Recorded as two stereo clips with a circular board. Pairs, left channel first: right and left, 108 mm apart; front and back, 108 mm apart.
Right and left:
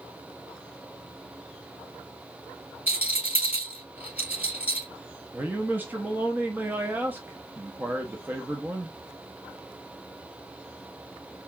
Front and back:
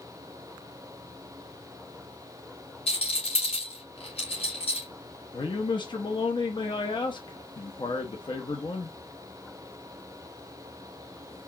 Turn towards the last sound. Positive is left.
turn(degrees=25)